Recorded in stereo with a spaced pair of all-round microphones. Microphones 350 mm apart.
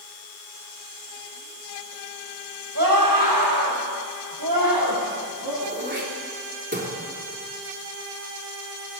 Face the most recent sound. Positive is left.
turn(degrees=-30)  # may be behind; listen again after turning